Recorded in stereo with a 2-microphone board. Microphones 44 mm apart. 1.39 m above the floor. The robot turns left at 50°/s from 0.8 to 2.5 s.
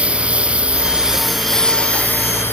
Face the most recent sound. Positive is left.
turn(degrees=125)